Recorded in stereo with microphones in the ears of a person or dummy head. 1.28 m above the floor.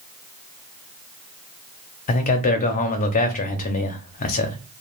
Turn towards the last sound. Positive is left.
turn(degrees=40)  # may be behind; listen again after turning